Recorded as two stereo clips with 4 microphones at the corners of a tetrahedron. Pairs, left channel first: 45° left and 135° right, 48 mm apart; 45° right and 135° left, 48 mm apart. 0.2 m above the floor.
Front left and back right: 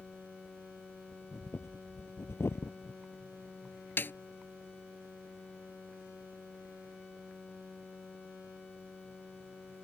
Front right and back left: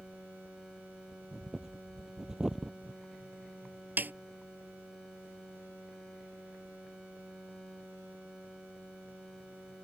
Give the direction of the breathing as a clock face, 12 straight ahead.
10 o'clock.